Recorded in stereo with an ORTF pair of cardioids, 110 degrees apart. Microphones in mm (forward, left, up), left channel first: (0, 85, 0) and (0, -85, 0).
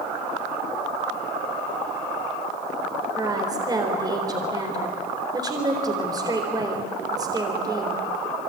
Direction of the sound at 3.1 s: 25° right.